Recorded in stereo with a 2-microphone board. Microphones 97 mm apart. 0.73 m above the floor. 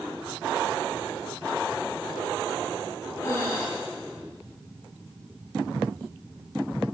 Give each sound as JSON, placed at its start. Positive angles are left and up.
{"t": 3.2, "sound": "breathing", "side_deg": 35, "distance_m": 7.0}